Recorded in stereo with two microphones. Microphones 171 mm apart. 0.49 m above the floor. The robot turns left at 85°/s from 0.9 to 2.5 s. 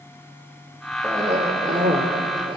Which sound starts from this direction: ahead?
A cough, at 1.0 s.